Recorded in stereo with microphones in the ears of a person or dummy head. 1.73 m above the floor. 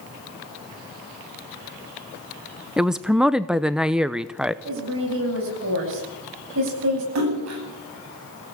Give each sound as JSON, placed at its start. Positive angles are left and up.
{"t": 2.8, "sound": "a woman speaking", "side_deg": -5, "distance_m": 0.7}
{"t": 4.7, "sound": "a woman speaking", "side_deg": -70, "distance_m": 9.5}
{"t": 7.2, "sound": "a splash", "side_deg": -85, "distance_m": 9.0}